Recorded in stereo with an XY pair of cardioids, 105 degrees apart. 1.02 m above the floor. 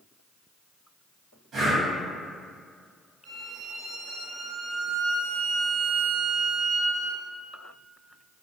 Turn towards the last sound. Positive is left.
turn(degrees=-60)